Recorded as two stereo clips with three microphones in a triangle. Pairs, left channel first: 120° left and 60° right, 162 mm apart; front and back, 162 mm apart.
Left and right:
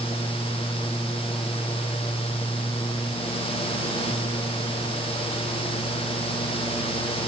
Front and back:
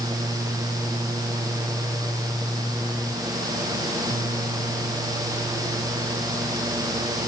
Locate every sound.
Only background noise.